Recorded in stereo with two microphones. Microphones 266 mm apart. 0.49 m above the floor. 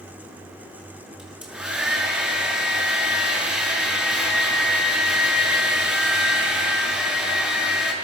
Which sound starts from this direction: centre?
A hair dryer, at 1.2 s.